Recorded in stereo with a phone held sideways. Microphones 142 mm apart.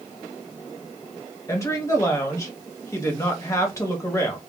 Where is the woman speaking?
20° left (ahead or behind), 1.2 m.